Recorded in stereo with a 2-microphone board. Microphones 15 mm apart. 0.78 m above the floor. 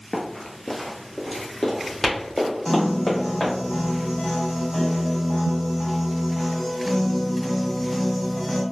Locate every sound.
0.1 s running footsteps: 25° left (ahead or behind), 0.8 m; by 3.5 s 45° left (ahead or behind), 2 m
2.6 s a piano: 30° left (ahead or behind), 1.2 m